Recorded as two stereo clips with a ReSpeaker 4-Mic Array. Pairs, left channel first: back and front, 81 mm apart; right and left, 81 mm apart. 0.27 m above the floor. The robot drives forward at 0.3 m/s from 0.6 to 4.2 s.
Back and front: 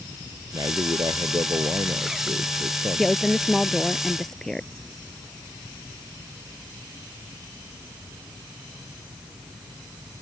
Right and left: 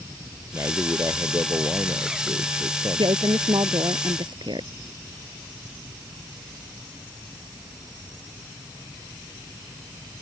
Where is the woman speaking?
90° left; by 4.7 s 95° left.